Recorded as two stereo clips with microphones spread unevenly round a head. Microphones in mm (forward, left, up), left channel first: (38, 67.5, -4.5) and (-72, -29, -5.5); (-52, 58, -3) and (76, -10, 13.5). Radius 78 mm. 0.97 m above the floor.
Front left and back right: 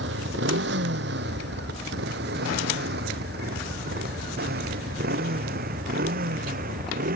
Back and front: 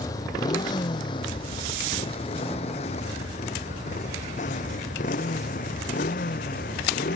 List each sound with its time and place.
0.0 s a motorcycle: 135° right; by 7.2 s 165° right